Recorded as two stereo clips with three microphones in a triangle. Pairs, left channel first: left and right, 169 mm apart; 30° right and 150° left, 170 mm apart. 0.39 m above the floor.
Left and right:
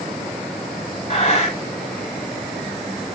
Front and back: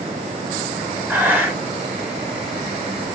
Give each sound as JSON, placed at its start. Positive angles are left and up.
{"t": 1.1, "sound": "breathing", "azimuth_deg": 80, "distance_m": 1.2}